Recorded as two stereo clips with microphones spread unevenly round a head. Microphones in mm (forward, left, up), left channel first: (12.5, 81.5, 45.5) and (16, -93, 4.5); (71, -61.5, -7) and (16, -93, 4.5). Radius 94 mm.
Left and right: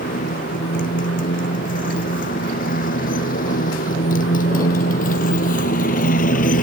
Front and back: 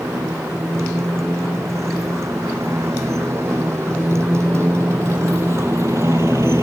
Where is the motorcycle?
135° left.